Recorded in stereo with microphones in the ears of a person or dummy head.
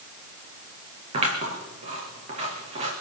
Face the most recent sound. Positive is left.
turn(degrees=-35)  # may be behind; listen again after turning